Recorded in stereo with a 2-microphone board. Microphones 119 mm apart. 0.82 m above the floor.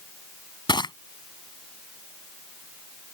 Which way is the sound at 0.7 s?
40° left (ahead or behind).